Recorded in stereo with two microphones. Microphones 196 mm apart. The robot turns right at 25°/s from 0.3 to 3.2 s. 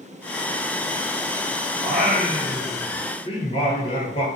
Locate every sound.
1.8 s singing: straight ahead, 0.9 m; by 4.2 s 35° left, 0.9 m